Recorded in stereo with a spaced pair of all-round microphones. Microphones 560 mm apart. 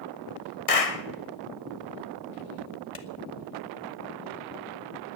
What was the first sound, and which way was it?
A clap, 80° left.